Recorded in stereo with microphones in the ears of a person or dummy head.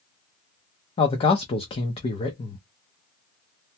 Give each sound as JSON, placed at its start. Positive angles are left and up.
{"t": 1.0, "sound": "a man speaking", "side_deg": 30, "distance_m": 0.5}